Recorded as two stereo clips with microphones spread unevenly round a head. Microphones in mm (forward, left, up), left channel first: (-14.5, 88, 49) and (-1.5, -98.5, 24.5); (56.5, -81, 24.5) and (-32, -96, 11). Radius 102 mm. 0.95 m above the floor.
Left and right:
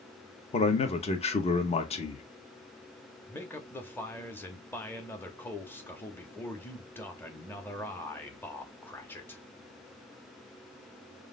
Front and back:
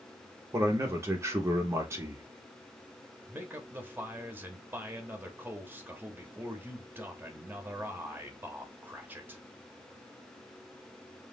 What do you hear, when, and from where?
0.5 s a man speaking: 150° left, 0.8 m
3.3 s a man speaking: 175° left, 0.9 m